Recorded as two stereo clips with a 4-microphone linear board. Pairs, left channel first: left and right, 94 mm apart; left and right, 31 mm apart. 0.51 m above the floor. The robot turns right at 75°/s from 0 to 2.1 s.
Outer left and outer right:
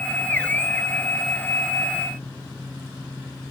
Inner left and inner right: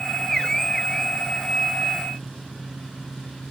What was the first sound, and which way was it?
Only background noise.